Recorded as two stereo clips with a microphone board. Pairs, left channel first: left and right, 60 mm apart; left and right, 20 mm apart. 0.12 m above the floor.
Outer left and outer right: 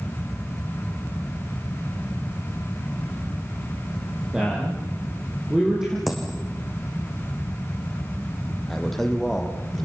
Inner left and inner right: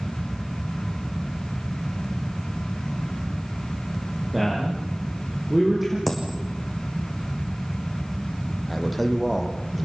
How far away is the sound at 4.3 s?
About 6 m.